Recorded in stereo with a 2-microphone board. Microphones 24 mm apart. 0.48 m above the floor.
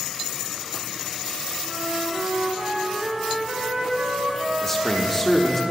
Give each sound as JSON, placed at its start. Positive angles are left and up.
{"t": 1.6, "sound": "a flute", "side_deg": -65, "distance_m": 2.0}
{"t": 4.6, "sound": "a man speaking", "side_deg": 15, "distance_m": 0.8}